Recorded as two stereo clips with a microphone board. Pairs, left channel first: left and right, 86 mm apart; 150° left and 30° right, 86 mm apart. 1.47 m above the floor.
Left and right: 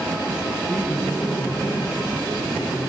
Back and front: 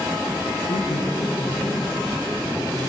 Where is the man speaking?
170° left, 0.8 m; by 2.9 s 125° left, 4 m.